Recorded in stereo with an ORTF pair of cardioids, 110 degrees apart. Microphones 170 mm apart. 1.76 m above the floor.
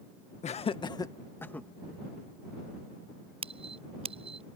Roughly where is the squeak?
Ahead right.